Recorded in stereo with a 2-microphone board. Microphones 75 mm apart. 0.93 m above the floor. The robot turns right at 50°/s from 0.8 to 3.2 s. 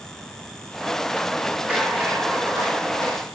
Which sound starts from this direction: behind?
A rattle, at 1.7 s.